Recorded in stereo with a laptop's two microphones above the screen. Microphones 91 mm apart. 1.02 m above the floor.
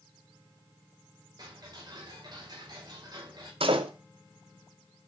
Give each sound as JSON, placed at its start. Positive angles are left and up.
{"t": 1.4, "sound": "ticking", "side_deg": -45, "distance_m": 5.0}
{"t": 3.6, "sound": "a door slam", "side_deg": -75, "distance_m": 2.0}